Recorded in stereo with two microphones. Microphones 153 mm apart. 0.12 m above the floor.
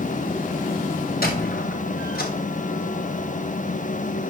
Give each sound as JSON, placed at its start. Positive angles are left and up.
{"t": 1.2, "sound": "a squeak", "side_deg": 75, "distance_m": 3.5}